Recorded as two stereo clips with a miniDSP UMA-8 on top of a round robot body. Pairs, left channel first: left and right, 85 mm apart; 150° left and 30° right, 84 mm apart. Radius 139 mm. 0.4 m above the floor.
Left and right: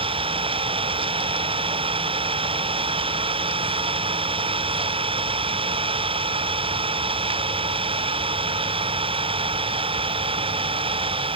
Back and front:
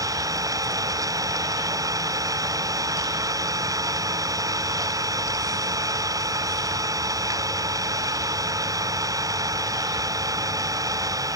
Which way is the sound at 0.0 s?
80° right.